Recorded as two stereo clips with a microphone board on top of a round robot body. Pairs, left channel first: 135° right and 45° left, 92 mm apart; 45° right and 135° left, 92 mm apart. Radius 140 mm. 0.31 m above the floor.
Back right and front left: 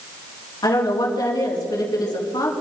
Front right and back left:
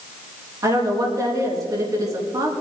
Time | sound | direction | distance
0.6 | a woman speaking | 175° right | 5 m